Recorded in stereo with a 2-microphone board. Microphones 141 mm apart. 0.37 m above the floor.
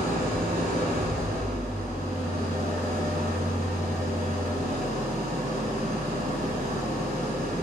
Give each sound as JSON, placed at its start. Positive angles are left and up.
{"t": 0.0, "sound": "an engine running", "side_deg": -85, "distance_m": 0.9}